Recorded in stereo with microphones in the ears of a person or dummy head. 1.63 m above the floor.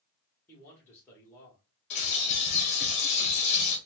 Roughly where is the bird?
Left.